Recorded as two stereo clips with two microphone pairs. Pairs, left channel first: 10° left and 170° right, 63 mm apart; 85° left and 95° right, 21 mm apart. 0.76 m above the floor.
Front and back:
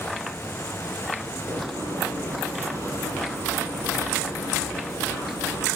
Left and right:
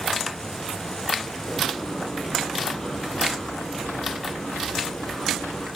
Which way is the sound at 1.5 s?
160° left.